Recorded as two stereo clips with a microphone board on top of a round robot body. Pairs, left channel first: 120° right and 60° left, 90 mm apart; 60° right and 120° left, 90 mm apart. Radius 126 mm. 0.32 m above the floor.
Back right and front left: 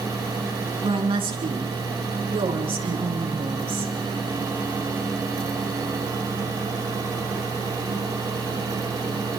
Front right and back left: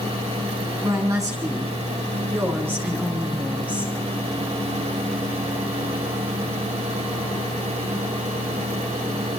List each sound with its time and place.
0.8 s a woman speaking: 70° left, 5.5 m; by 3.9 s 50° left, 6 m